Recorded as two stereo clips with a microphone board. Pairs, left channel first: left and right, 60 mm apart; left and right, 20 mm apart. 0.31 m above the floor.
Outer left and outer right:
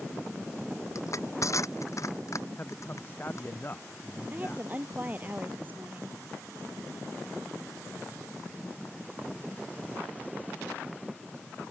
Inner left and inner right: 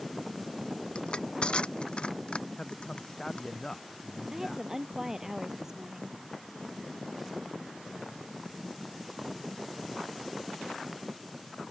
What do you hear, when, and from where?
0.9 s crushing: 60° left (ahead or behind)
2.6 s a man speaking: 35° left (ahead or behind)
4.3 s a woman speaking: 30° right (ahead or behind)